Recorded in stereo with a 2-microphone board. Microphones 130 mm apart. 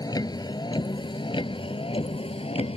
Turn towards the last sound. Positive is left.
turn(degrees=45)  # may be behind; listen again after turning